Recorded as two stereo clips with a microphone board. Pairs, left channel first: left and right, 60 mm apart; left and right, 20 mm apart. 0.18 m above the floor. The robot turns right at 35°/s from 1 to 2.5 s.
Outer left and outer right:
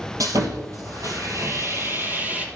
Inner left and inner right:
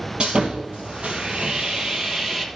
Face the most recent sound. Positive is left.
turn(degrees=-25)